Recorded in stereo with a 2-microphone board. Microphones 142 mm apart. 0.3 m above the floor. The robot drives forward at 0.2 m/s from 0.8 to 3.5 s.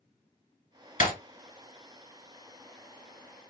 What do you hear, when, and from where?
1.0 s breaking glass: 70° left (ahead or behind), 1.9 m